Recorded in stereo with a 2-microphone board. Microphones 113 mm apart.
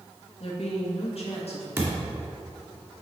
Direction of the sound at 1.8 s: 20° right (ahead or behind).